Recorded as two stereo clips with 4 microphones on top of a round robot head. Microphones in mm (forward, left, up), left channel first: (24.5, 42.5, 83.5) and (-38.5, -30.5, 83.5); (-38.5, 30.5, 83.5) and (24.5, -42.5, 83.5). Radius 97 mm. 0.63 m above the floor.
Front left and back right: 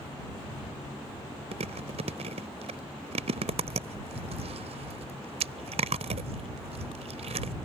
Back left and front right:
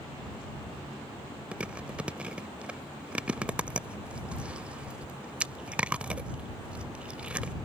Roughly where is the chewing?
Behind right.